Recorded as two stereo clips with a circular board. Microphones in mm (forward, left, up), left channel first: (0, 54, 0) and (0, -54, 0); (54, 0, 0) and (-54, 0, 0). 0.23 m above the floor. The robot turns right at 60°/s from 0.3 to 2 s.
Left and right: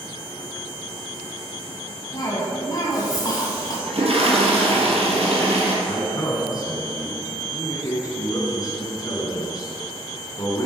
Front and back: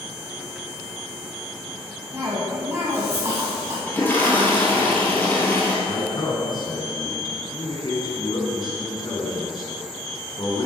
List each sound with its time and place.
2.1 s a cough: 125° left, 1.6 m
3.9 s a toilet flushing: 70° right, 2.5 m
5.8 s a man speaking: 40° left, 3 m